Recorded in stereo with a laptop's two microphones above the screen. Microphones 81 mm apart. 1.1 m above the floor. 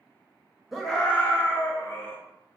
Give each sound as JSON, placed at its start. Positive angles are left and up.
{"t": 0.7, "sound": "a scream", "side_deg": 0, "distance_m": 0.7}